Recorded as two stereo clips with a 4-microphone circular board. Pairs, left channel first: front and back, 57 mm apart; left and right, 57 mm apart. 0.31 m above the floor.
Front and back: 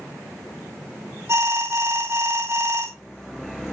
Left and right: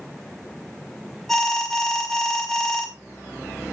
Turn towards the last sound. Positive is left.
turn(degrees=175)